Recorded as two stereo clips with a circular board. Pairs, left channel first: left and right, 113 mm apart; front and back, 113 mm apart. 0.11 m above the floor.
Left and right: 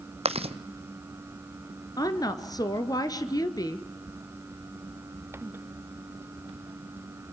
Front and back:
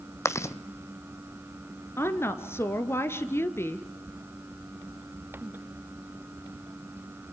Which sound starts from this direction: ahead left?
A woman speaking, at 2.0 s.